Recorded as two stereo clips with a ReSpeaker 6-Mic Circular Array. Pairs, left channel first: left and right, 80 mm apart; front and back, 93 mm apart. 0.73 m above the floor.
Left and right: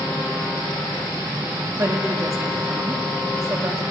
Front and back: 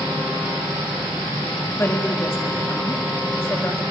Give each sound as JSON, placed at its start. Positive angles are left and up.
{"t": 1.7, "sound": "a woman speaking", "azimuth_deg": -55, "distance_m": 1.4}